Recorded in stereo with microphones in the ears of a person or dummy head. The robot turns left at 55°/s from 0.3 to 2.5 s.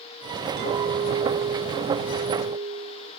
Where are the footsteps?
No footsteps in this recording.